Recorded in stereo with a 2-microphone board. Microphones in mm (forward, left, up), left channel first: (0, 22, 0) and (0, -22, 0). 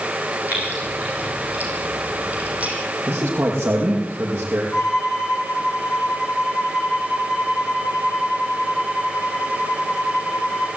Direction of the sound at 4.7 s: Centre (ahead or behind).